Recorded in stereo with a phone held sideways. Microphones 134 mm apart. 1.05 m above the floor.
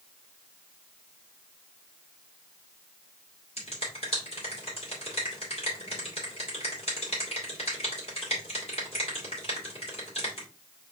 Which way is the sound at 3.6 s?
50° left (ahead or behind).